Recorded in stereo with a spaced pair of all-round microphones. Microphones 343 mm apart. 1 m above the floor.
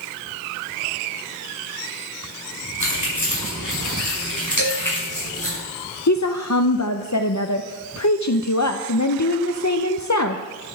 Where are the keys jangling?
55° left (ahead or behind), 5 m; by 5.6 s 65° left (ahead or behind), 6.5 m.